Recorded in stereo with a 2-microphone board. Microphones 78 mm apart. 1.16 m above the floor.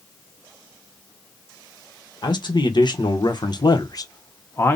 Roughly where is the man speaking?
Left.